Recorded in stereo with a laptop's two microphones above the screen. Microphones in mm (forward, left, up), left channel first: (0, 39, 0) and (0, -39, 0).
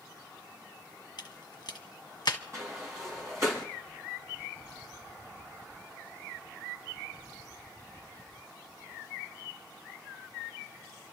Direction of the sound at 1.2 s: 65° left (ahead or behind).